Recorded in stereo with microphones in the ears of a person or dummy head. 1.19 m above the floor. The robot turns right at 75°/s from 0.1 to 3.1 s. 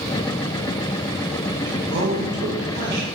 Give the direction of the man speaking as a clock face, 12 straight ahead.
5 o'clock.